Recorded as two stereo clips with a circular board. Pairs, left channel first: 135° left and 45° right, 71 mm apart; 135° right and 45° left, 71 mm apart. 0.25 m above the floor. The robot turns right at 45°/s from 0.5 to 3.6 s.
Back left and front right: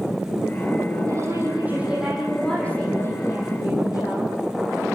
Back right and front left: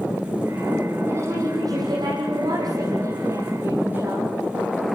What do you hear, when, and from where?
1.1 s a woman speaking: 5° right, 9 m; by 4.3 s 110° left, 9 m